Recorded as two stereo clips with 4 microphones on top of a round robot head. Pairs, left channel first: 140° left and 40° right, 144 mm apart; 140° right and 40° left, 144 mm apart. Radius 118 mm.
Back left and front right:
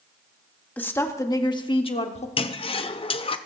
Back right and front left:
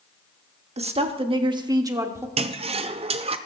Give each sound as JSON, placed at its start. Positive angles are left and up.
{"t": 0.8, "sound": "a woman speaking", "azimuth_deg": 65, "distance_m": 1.4}
{"t": 2.4, "sound": "a toilet flushing", "azimuth_deg": 90, "distance_m": 0.7}